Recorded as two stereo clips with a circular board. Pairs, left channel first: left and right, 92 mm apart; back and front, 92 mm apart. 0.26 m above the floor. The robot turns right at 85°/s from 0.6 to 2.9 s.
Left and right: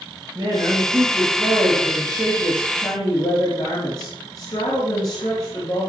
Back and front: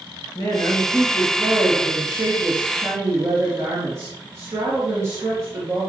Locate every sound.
0.3 s a woman speaking: 140° right, 4 m; by 5.9 s 55° left, 4 m